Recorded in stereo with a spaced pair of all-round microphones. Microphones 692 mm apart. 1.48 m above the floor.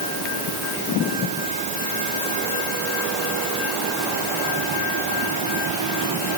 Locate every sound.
Only background noise.